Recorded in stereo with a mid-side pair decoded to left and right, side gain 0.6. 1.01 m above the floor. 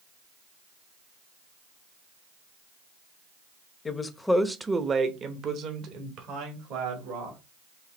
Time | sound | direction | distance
3.9 | a woman speaking | 30° left | 0.8 m